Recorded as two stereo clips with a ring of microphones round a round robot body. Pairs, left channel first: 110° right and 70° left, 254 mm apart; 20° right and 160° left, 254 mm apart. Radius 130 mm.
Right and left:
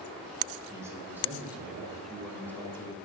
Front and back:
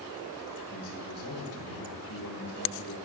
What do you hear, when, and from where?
0.7 s a man speaking: 10° right, 5 m; by 3.0 s 40° right, 3 m